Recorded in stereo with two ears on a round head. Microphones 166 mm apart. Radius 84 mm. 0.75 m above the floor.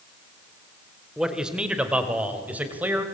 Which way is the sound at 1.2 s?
5° right (ahead or behind).